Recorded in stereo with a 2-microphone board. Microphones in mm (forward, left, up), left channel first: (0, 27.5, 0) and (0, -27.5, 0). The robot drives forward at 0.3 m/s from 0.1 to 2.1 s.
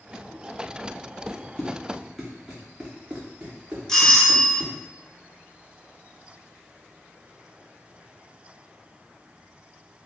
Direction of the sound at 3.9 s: 10° left (ahead or behind).